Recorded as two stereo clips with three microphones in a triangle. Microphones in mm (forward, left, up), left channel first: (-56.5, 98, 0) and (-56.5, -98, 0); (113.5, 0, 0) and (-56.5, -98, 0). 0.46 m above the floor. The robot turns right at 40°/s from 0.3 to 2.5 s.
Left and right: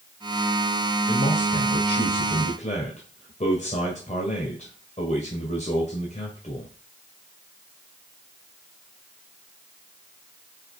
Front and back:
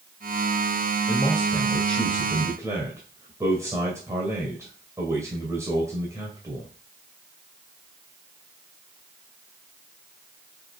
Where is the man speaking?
80° left, 2 m; by 6.7 s 135° left, 2 m.